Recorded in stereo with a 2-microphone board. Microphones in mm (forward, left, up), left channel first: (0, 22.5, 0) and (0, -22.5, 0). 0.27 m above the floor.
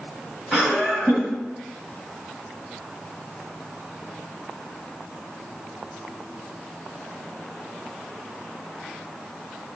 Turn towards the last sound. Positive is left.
turn(degrees=0)  # may be behind; listen again after turning